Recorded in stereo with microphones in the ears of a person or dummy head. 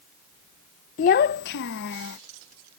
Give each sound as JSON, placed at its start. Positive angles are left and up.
{"t": 1.0, "sound": "a child speaking", "side_deg": 35}